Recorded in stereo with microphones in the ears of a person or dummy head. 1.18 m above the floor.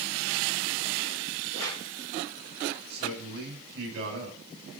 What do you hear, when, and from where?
1.5 s a whoosh: 70° right (ahead or behind), 5.5 m
2.9 s a man speaking: 55° right (ahead or behind), 9.5 m